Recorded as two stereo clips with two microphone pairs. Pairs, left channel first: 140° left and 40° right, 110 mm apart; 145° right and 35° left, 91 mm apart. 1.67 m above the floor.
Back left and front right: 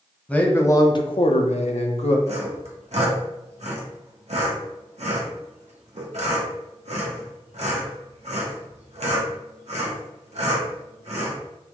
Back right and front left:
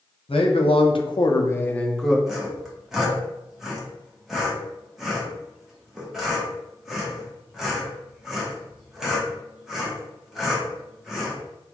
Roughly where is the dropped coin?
No dropped coin in this recording.